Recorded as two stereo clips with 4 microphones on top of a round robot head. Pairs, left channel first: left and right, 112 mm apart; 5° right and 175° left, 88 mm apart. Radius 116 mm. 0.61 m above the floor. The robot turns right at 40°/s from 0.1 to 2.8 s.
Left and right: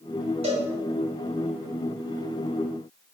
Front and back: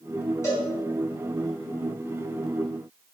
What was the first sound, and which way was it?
A cowbell, 60° right.